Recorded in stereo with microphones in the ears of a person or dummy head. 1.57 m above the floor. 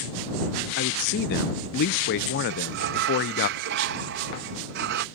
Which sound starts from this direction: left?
A man speaking, at 0.8 s.